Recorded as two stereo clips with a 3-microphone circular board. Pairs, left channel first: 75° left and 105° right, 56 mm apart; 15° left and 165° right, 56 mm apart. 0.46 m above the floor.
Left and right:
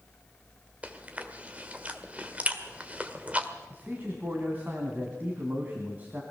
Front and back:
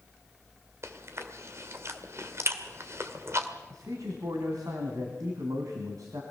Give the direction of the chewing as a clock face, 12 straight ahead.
5 o'clock.